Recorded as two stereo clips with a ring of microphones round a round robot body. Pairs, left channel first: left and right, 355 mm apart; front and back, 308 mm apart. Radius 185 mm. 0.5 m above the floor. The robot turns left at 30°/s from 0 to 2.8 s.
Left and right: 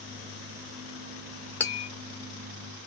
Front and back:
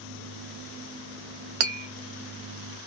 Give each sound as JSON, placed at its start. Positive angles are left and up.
{"t": 1.6, "sound": "tapping", "azimuth_deg": 175, "distance_m": 0.6}